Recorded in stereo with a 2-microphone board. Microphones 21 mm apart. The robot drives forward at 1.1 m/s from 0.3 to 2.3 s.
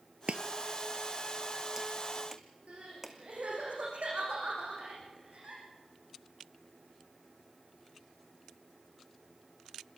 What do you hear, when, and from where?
0.3 s chopping: 60° right (ahead or behind), 0.6 m; by 3.2 s 15° right (ahead or behind), 2 m
2.7 s crying: 70° right (ahead or behind), 8.5 m